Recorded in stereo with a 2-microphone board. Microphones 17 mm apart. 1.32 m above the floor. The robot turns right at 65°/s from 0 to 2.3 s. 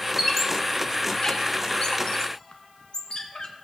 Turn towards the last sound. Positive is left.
turn(degrees=50)  # may be behind; listen again after turning